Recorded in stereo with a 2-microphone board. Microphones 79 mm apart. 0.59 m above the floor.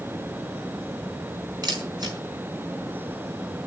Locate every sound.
1.6 s a camera shutter: 55° right (ahead or behind), 4.5 m